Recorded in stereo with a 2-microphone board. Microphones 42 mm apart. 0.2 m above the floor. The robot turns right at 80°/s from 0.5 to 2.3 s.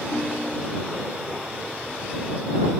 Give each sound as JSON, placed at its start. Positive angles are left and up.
{"t": 0.1, "sound": "a ringtone", "azimuth_deg": -160}